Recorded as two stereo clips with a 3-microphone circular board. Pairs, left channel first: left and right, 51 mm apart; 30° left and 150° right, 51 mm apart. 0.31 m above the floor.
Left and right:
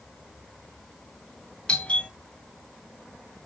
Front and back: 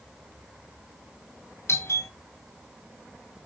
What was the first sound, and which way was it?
A doorbell, 25° left.